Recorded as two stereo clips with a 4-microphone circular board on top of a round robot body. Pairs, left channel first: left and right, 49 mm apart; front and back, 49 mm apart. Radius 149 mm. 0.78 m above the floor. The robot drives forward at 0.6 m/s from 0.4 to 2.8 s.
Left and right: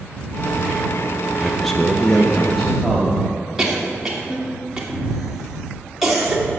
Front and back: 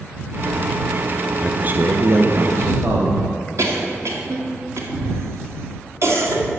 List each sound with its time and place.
1.4 s a man speaking: 165° left, 0.6 m; by 3.3 s 175° left, 1.2 m
3.6 s a cough: 170° right, 1.9 m